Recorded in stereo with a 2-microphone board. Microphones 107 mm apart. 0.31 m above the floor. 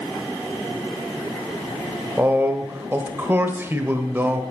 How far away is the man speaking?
About 1.1 m.